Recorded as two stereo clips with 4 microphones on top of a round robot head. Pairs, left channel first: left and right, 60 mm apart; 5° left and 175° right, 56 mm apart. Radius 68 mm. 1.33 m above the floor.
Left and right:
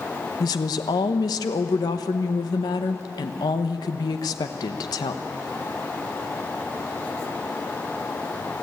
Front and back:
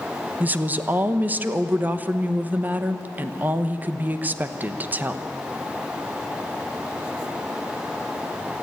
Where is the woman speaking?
120° left, 1.0 m.